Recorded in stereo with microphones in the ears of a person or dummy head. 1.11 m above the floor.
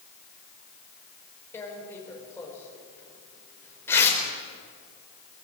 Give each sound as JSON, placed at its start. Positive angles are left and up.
{"t": 1.5, "sound": "tearing paper", "side_deg": 10, "distance_m": 4.5}